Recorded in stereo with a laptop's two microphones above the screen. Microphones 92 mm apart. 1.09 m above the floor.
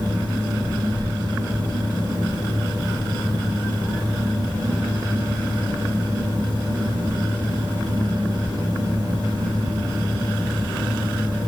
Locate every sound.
0.0 s a fan: 55° right (ahead or behind), 3.5 m